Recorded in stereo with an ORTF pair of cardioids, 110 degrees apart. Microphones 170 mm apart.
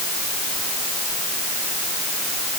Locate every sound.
Only background noise.